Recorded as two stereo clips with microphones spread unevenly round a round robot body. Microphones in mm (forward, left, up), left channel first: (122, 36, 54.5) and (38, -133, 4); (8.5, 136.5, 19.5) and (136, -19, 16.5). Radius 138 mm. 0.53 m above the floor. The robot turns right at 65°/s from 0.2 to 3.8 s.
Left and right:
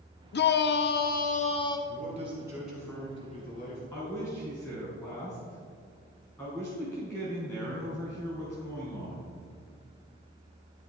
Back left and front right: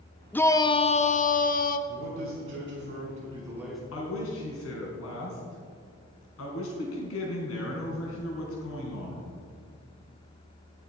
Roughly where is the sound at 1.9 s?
Right.